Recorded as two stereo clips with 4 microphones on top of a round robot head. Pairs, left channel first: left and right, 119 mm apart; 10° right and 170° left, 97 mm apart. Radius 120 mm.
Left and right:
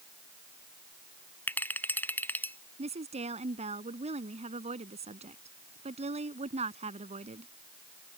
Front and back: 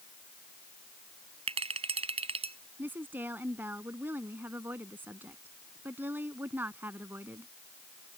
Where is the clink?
165° left.